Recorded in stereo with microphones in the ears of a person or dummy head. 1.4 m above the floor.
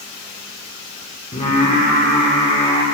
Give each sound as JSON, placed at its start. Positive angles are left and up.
{"t": 1.3, "sound": "singing", "side_deg": 30, "distance_m": 1.3}